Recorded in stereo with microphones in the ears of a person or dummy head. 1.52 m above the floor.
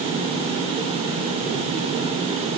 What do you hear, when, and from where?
Only background noise.